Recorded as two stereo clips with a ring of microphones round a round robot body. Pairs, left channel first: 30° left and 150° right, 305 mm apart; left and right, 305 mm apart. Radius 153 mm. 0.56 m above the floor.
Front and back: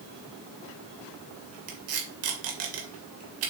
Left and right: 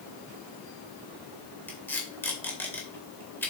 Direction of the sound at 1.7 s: 175° left.